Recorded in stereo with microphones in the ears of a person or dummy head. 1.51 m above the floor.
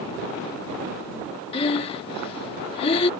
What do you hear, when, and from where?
1.5 s breathing: 30° left (ahead or behind)